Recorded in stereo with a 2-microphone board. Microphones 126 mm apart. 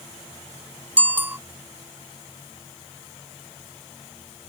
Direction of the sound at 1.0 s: 15° right (ahead or behind).